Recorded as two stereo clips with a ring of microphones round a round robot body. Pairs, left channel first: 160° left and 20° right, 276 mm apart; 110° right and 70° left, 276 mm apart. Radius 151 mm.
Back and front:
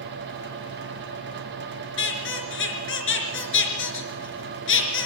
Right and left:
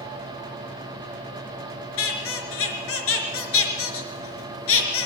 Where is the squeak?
155° right, 4 m.